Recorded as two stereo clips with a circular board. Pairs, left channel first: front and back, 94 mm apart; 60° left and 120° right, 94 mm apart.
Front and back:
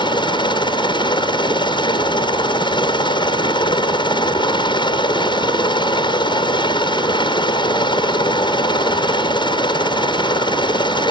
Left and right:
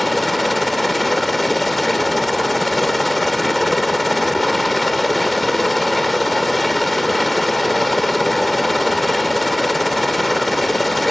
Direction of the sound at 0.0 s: 30° right.